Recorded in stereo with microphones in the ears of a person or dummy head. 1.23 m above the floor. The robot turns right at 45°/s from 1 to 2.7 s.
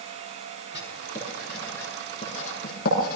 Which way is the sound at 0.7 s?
20° right (ahead or behind).